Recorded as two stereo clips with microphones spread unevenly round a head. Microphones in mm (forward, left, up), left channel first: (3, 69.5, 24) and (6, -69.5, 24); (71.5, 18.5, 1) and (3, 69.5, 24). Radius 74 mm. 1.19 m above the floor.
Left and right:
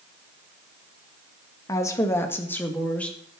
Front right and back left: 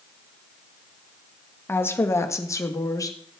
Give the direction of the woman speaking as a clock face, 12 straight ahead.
11 o'clock.